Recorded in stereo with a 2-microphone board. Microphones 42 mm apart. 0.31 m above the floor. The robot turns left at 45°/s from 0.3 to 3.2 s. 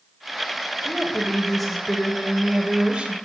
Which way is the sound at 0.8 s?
15° left (ahead or behind).